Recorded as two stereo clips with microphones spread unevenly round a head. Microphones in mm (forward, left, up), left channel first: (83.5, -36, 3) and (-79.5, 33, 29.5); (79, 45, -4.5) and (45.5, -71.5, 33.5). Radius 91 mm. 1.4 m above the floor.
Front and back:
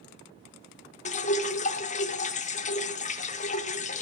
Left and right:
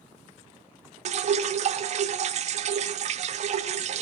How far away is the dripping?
About 0.8 m.